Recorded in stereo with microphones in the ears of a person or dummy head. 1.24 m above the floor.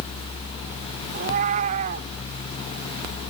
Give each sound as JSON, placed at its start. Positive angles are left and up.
{"t": 1.1, "sound": "a cat meowing", "side_deg": -35}